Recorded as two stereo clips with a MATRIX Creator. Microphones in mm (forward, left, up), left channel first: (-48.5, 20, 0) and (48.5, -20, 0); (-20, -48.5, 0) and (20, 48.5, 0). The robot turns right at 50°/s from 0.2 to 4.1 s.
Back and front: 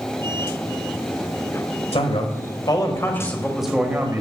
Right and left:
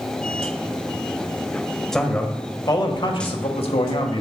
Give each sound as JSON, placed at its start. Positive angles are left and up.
{"t": 1.9, "sound": "a man speaking", "azimuth_deg": 165, "distance_m": 1.4}